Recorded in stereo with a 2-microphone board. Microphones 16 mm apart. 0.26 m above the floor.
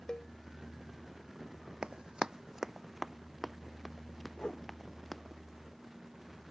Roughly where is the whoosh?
Left.